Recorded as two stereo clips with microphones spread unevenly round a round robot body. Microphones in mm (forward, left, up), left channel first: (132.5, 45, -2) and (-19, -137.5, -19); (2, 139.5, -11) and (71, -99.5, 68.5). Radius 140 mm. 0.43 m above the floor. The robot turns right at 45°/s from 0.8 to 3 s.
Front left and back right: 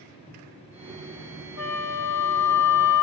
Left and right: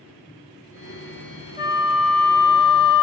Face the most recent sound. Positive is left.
turn(degrees=105)